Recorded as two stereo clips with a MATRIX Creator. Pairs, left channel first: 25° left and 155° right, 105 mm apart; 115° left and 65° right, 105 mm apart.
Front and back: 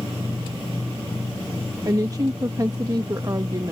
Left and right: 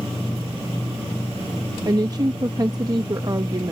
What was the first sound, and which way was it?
A woman speaking, 110° right.